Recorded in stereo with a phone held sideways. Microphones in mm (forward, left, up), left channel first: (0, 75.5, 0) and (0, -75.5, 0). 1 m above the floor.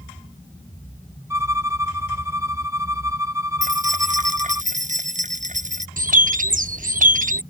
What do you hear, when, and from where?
1.3 s a violin: 20° right (ahead or behind)
3.6 s keys jangling: 55° right (ahead or behind)
6.0 s a bird: 60° right (ahead or behind)